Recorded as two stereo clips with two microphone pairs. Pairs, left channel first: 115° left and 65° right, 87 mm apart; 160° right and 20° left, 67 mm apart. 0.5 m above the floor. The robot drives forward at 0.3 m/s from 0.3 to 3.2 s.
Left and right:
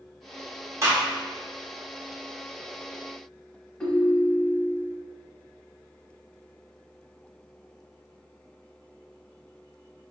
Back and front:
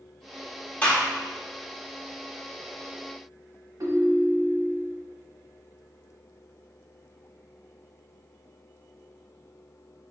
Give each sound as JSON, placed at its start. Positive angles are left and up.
{"t": 0.8, "sound": "a gunshot", "azimuth_deg": -100, "distance_m": 0.9}
{"t": 3.8, "sound": "a ringtone", "azimuth_deg": 40, "distance_m": 0.8}